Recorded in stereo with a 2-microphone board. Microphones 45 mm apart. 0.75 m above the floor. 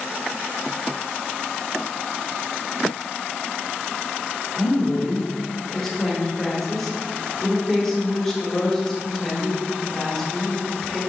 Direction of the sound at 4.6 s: 5° left (ahead or behind).